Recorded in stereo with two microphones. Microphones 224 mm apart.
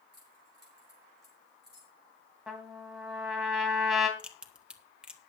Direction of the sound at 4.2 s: 5° right (ahead or behind).